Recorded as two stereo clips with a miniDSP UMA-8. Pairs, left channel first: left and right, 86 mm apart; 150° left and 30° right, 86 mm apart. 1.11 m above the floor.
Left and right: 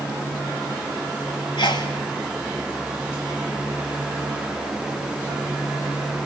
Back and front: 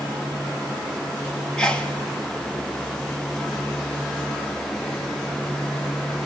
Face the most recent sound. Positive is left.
turn(degrees=70)